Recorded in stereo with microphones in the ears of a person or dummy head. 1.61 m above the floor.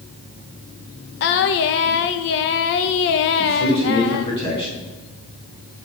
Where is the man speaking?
25° left (ahead or behind), 4.5 m.